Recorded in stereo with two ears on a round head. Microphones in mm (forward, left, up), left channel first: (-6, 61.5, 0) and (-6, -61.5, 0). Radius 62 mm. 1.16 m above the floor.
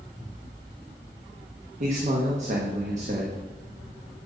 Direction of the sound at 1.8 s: 60° right (ahead or behind).